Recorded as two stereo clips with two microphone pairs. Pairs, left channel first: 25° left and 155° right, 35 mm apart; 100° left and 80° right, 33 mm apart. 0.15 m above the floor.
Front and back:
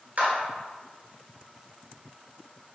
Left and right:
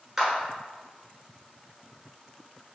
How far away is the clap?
About 1.4 m.